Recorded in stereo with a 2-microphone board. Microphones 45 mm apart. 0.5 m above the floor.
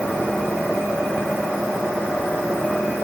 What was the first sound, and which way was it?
Only background noise.